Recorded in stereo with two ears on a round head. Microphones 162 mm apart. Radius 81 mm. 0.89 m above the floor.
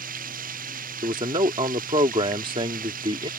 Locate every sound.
0.0 s running water: 50° right (ahead or behind)
1.0 s a man speaking: 30° right (ahead or behind)